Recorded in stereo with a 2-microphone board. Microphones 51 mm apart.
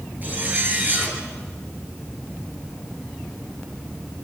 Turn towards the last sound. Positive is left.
turn(degrees=-35)  # may be behind; listen again after turning